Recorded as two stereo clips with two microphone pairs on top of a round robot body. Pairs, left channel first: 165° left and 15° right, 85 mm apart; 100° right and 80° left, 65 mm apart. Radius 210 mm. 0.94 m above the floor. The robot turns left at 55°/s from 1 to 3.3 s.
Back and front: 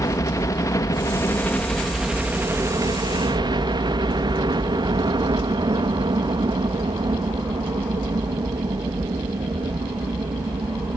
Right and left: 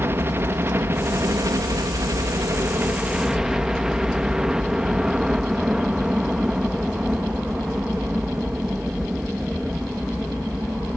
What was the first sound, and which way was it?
A helicopter, 130° left.